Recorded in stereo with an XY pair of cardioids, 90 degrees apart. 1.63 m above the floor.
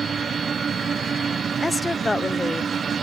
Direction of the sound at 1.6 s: 15° left.